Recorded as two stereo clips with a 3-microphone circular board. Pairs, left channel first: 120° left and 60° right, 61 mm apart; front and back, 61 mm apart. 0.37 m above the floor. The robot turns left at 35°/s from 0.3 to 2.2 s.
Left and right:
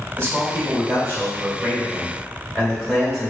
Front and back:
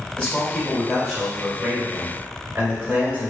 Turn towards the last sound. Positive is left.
turn(degrees=-130)